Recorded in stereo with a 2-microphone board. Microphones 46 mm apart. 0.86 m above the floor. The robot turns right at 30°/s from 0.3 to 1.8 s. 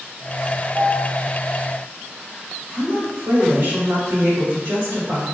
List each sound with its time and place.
0.8 s a piano: 60° right (ahead or behind), 2.0 m; by 1.1 s 50° right (ahead or behind), 2.0 m
2.7 s a woman speaking: 55° right (ahead or behind), 1.2 m